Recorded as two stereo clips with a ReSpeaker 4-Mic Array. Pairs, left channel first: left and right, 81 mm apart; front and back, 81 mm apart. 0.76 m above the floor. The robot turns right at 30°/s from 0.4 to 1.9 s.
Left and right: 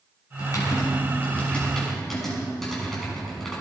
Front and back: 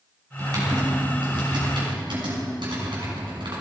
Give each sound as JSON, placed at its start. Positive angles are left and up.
{"t": 0.4, "sound": "typing on a keyboard", "azimuth_deg": 130, "distance_m": 6.0}